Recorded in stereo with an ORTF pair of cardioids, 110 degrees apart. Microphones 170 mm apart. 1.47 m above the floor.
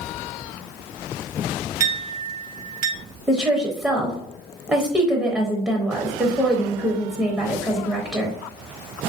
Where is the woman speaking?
10° right, 0.7 m.